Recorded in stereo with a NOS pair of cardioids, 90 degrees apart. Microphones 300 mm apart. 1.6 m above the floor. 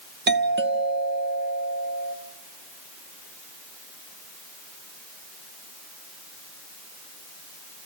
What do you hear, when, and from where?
0.3 s a doorbell: 35° right, 1.4 m